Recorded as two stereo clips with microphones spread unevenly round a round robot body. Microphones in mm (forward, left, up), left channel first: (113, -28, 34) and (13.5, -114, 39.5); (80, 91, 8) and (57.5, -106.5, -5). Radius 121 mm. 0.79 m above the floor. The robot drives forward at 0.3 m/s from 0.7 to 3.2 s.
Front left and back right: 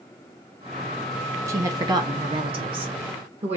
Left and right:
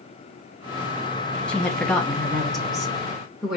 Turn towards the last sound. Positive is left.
turn(degrees=175)